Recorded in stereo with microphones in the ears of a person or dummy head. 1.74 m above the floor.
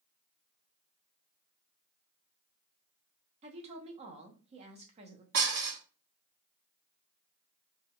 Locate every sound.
3.4 s a woman speaking: 30° right (ahead or behind), 0.5 m
5.3 s dishes clattering: 60° right (ahead or behind), 1.7 m